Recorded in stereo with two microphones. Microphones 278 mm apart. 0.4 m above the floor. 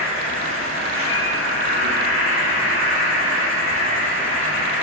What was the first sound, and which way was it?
An insect, 50° right (ahead or behind).